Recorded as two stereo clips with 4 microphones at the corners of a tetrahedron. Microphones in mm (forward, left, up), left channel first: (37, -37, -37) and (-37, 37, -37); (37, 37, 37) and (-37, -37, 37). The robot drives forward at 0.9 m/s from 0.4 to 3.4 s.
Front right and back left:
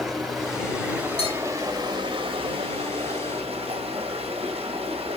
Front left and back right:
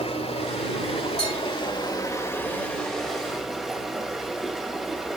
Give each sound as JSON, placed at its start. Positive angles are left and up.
{"t": 0.0, "sound": "running water", "azimuth_deg": 45, "distance_m": 1.8}
{"t": 1.2, "sound": "a bell", "azimuth_deg": -35, "distance_m": 4.0}